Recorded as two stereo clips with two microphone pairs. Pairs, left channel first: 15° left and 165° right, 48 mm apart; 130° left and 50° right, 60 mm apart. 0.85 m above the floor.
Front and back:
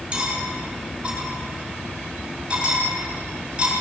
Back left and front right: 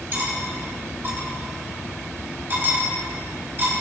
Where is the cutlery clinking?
100° right, 3 m.